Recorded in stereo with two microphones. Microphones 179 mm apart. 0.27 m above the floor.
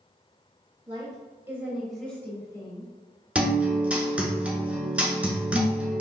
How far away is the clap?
No clap in this recording.